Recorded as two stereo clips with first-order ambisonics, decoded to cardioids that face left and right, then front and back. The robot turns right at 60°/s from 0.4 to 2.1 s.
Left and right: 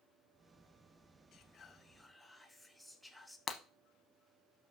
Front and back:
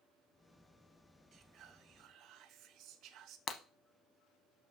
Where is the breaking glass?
40° left, 0.7 m.